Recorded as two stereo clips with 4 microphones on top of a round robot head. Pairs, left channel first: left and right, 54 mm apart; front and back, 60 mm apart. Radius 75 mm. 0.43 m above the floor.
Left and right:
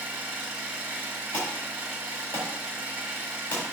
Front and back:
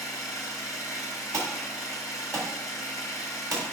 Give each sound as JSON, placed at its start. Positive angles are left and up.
{"t": 0.0, "sound": "an engine running", "azimuth_deg": -45, "distance_m": 2.5}
{"t": 1.3, "sound": "an alarm", "azimuth_deg": 150, "distance_m": 4.0}